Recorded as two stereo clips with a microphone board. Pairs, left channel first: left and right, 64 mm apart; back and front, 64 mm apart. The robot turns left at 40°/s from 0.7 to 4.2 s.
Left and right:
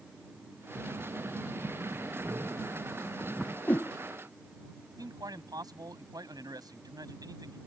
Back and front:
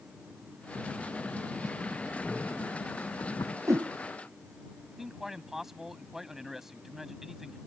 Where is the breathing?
60° right; by 3.6 s 170° right.